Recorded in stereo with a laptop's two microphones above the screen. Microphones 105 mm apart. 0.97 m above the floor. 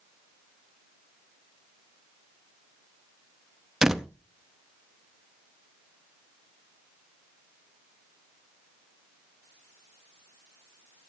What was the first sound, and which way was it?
A door slam, 5° right (ahead or behind).